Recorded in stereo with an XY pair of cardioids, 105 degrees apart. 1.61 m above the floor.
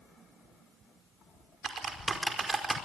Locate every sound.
1.6 s typing on a keyboard: 30° right, 5 m